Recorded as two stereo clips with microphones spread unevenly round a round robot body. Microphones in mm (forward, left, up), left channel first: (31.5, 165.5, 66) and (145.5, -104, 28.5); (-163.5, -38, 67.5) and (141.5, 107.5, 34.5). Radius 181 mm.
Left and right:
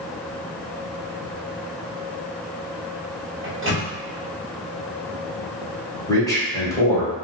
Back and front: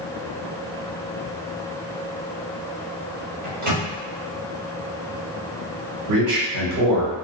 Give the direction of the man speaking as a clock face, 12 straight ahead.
11 o'clock.